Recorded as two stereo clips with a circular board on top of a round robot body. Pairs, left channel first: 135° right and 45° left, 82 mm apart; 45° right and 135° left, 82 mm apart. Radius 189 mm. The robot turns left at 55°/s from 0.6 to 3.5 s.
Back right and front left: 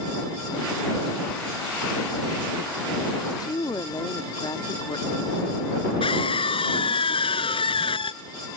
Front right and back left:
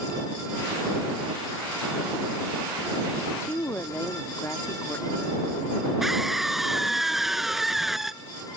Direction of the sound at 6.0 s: 140° right.